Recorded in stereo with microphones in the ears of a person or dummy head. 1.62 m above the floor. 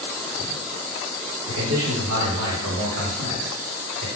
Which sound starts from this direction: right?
A man speaking, at 1.5 s.